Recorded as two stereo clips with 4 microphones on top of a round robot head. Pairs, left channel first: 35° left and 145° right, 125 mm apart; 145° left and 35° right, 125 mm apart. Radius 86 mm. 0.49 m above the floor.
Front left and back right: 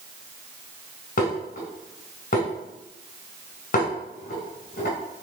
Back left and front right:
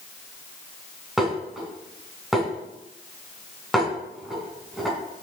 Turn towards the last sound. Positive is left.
turn(degrees=55)